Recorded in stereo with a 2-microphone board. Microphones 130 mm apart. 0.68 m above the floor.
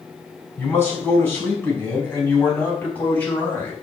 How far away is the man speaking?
About 5.5 m.